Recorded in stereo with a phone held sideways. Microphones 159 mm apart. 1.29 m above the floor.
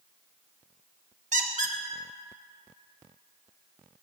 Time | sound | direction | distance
1.3 | a squeak | 50° right (ahead or behind) | 0.6 m